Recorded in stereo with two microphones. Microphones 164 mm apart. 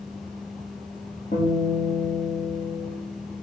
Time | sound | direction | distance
1.3 | a guitar | 45° left (ahead or behind) | 4 m